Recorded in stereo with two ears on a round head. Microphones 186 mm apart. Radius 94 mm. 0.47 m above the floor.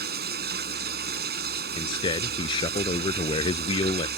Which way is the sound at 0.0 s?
50° right (ahead or behind).